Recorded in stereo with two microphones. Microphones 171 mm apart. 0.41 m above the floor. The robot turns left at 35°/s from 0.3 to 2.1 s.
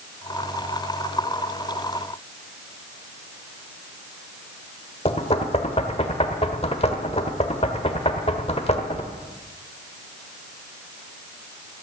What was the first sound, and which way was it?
Knocking, 35° left (ahead or behind).